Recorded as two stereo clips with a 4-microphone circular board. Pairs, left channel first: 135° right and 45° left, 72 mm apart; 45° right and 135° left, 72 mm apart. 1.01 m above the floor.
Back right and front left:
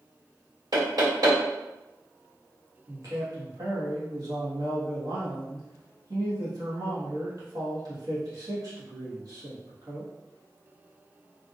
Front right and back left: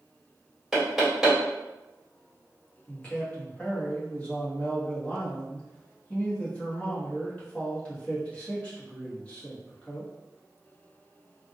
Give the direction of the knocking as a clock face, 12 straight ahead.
10 o'clock.